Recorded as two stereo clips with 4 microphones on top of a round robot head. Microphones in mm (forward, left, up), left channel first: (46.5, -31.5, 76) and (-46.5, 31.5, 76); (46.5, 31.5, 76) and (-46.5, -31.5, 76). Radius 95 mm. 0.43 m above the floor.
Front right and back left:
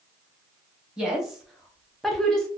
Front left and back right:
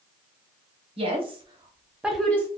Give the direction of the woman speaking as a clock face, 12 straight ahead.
4 o'clock.